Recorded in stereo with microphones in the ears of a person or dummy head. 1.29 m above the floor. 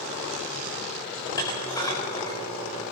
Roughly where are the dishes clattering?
Centre.